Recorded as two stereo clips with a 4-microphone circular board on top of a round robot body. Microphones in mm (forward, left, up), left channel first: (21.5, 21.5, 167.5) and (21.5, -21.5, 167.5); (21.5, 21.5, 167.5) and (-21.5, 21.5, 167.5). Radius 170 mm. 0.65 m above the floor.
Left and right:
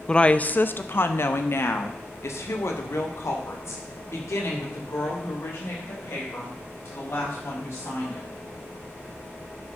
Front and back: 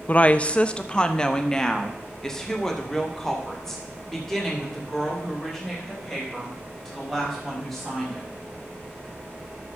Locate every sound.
0.1 s a woman speaking: 25° left, 0.6 m; by 8.3 s 85° left, 4.5 m